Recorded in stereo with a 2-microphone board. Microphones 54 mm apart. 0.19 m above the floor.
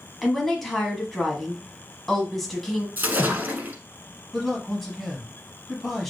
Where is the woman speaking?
5° left (ahead or behind), 1.1 m.